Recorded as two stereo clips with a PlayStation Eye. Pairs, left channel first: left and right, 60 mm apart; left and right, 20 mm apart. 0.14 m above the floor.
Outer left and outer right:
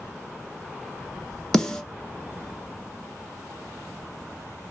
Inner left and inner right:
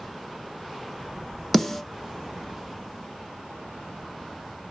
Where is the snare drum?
10° left (ahead or behind), 0.5 m.